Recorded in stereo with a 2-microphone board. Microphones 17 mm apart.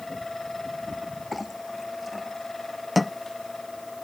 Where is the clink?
Centre (ahead or behind).